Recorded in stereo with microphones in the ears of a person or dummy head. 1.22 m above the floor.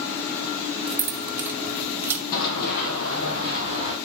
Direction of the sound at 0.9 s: 5° right (ahead or behind).